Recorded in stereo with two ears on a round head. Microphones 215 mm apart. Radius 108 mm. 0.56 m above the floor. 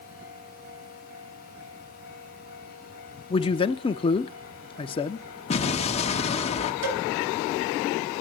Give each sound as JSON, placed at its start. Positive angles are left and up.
{"t": 3.3, "sound": "a man speaking", "side_deg": 20, "distance_m": 0.7}
{"t": 5.5, "sound": "an explosion", "side_deg": 25, "distance_m": 1.2}
{"t": 6.8, "sound": "a cowbell", "side_deg": -60, "distance_m": 5.0}